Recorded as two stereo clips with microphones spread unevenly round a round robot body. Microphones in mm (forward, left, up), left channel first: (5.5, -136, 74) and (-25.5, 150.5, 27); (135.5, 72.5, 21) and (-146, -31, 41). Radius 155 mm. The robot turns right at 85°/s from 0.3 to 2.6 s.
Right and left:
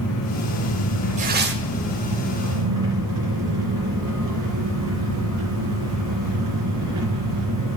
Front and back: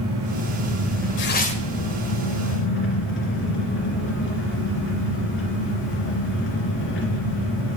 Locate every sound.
0.0 s an engine running: 125° right, 2.5 m; by 7.8 s 70° left, 2.5 m
1.2 s tearing paper: 50° left, 1.0 m; by 1.6 s 90° left, 1.0 m